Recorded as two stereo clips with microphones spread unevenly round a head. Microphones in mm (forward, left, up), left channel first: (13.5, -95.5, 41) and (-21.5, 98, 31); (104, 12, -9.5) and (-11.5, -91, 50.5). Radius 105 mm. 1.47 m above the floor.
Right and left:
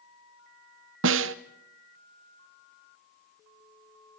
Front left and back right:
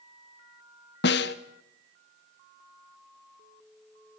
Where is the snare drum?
90° left, 0.6 m.